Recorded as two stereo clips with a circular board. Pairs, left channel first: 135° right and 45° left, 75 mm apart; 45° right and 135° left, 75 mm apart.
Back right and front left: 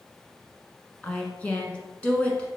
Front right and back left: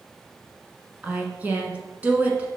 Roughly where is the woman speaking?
Behind.